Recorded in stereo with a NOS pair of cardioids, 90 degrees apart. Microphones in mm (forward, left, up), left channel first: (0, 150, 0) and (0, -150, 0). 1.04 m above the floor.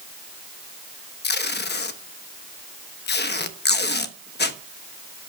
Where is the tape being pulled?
35° left, 1.1 m.